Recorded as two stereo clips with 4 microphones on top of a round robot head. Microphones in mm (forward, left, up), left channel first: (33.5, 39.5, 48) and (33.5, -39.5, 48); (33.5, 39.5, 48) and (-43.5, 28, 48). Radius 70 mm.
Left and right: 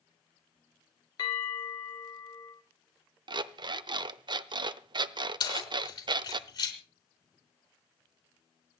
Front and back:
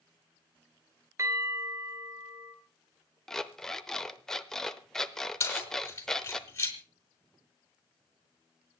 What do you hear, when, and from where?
1.2 s a bell: 135° left, 3 m
3.3 s an alarm clock: 75° right, 0.7 m
5.4 s keys jangling: 65° left, 4 m